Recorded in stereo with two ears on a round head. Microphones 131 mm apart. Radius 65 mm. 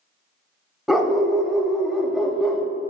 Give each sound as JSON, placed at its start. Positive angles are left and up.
{"t": 0.9, "sound": "a dog barking", "side_deg": 0, "distance_m": 0.7}